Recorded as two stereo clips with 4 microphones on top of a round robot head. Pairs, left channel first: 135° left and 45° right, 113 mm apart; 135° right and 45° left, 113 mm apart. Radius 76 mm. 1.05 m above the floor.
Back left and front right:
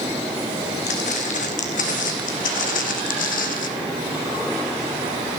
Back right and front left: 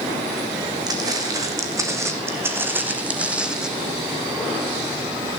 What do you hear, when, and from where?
0.9 s footsteps: 105° left, 3.5 m; by 3.7 s 130° left, 2.5 m